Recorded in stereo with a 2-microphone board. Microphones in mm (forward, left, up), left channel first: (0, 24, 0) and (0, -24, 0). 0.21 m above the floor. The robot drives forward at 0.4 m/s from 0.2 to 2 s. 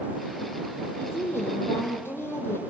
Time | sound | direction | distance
1.0 | a woman speaking | 50° left (ahead or behind) | 6 m